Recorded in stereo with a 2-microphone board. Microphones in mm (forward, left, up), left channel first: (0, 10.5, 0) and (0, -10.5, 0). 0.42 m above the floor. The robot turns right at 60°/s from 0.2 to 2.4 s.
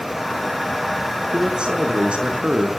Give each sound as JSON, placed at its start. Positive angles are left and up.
{"t": 1.3, "sound": "a man speaking", "azimuth_deg": -130, "distance_m": 5.5}